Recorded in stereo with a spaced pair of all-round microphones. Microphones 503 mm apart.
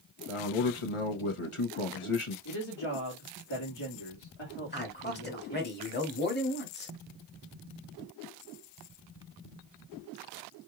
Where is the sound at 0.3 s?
75° left (ahead or behind), 1.2 m.